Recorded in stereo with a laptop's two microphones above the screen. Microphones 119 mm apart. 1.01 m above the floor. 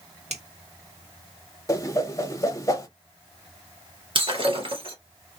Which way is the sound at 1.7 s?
25° left (ahead or behind).